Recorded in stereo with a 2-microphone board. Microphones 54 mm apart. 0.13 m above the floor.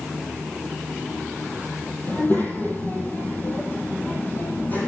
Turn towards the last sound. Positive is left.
turn(degrees=30)  # may be behind; listen again after turning